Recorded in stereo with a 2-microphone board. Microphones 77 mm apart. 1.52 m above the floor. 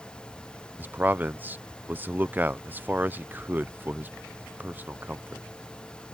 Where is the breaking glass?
I don't hear breaking glass.